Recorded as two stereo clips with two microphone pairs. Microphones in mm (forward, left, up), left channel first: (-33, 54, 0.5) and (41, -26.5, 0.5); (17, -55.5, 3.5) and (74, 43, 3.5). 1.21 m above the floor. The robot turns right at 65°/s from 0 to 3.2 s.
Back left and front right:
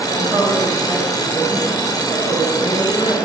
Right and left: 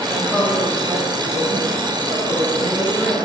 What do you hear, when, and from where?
0.1 s a woman speaking: 25° right, 3 m; by 3.3 s 175° left, 3 m